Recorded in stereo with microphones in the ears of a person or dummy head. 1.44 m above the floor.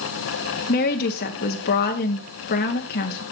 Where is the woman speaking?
45° left (ahead or behind), 0.9 m.